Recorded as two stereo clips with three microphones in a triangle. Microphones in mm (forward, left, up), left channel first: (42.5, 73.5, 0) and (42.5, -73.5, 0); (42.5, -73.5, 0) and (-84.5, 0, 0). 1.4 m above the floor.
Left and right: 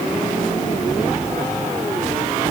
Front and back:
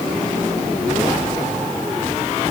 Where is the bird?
I don't hear a bird.